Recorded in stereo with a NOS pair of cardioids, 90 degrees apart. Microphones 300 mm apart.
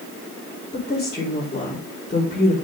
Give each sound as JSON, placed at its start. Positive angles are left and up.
{"t": 0.7, "sound": "a woman speaking", "azimuth_deg": 20, "distance_m": 4.5}